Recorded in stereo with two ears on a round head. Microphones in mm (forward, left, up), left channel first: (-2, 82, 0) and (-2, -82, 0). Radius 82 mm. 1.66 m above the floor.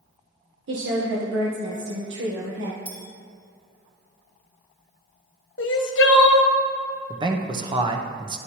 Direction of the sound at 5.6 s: 65° left (ahead or behind).